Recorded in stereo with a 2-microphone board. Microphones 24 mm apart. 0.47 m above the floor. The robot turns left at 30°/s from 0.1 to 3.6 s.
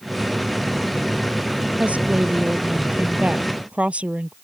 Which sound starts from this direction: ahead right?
A woman speaking, at 1.8 s.